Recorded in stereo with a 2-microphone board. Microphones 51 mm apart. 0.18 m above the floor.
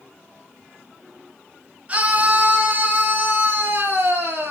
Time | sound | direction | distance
1.9 | a scream | 25° right (ahead or behind) | 2.5 m